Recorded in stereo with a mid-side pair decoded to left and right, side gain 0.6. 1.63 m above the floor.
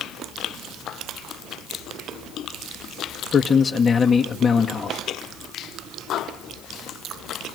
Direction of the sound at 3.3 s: 30° left.